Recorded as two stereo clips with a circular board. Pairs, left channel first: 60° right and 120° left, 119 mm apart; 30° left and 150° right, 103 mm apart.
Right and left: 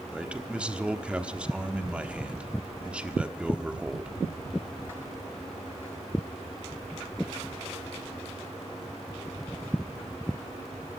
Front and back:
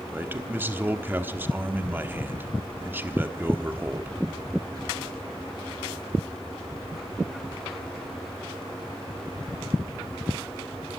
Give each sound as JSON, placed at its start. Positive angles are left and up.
{"t": 0.1, "sound": "a man speaking", "azimuth_deg": -175, "distance_m": 1.2}